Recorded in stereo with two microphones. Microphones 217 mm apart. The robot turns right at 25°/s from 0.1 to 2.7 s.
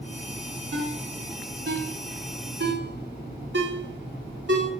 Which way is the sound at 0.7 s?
65° right (ahead or behind).